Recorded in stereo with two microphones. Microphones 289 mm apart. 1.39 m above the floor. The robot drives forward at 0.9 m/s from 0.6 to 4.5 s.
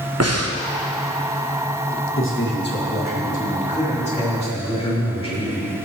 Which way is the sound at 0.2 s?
60° right (ahead or behind).